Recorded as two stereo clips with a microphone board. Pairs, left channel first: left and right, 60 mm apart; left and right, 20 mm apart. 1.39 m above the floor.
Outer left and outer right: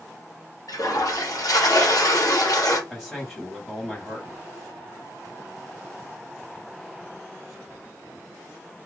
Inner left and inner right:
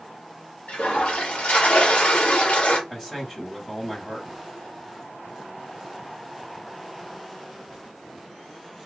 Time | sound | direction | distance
0.7 | a toilet flushing | 80° left | 1.2 m
2.9 | a man speaking | 5° left (ahead or behind) | 1.2 m